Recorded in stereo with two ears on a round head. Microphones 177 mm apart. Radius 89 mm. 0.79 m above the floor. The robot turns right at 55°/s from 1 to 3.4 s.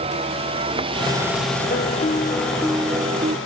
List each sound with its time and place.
0.0 s a vehicle: 30° right (ahead or behind); by 3.5 s 70° left (ahead or behind)
1.7 s a piano: 125° left; by 3.4 s 140° right